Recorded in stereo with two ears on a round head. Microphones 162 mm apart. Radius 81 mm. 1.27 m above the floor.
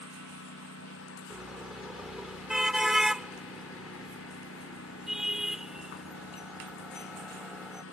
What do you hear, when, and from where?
0.0 s a lawn mower: 90° left
1.3 s a car horn: 5° right (ahead or behind)